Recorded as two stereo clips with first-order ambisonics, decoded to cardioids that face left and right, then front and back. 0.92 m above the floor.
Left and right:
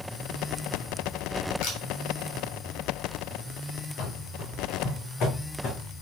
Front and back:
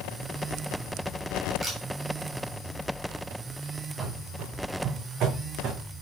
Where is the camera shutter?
105° left, 3.5 m.